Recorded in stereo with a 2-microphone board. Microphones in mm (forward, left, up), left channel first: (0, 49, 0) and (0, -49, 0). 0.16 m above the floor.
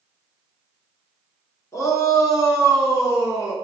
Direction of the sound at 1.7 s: 30° left (ahead or behind).